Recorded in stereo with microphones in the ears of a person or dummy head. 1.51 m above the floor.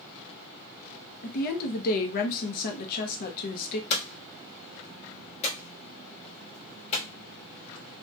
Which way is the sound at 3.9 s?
40° left (ahead or behind).